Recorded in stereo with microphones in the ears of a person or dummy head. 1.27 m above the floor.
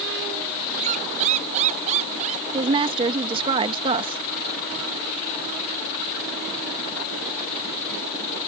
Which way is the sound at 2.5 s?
20° right (ahead or behind).